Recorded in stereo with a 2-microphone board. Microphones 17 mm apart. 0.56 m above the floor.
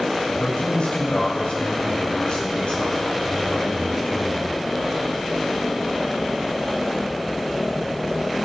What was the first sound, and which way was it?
A man speaking, 80° left.